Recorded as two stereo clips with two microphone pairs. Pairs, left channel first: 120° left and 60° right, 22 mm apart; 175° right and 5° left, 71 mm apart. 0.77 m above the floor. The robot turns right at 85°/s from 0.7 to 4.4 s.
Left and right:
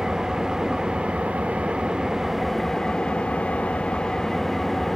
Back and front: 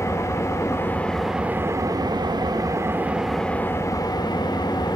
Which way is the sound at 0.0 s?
125° right.